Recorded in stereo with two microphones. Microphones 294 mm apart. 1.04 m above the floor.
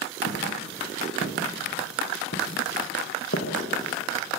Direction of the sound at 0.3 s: 45° left (ahead or behind).